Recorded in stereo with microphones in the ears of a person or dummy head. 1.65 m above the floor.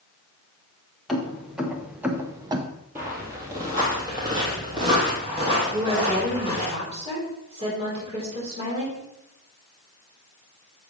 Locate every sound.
1.1 s keys jangling: centre (ahead or behind), 1.5 m; by 2.7 s 25° right (ahead or behind), 0.8 m
3.0 s footsteps: 15° right (ahead or behind), 1.8 m; by 6.7 s 35° right (ahead or behind), 3.5 m
5.7 s a woman speaking: 35° right (ahead or behind), 4.5 m